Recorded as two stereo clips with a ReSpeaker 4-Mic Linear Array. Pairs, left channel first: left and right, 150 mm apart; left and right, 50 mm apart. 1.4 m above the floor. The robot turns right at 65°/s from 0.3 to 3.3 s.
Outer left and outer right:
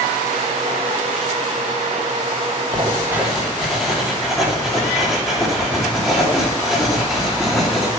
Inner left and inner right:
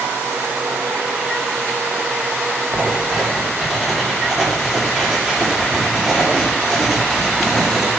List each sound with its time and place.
2.7 s writing: 40° right, 3 m; by 7.9 s straight ahead, 3 m